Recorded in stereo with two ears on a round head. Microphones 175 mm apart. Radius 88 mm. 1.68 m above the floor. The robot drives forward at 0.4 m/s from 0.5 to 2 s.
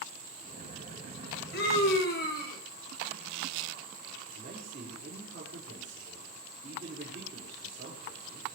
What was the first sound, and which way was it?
A scream, 55° left (ahead or behind).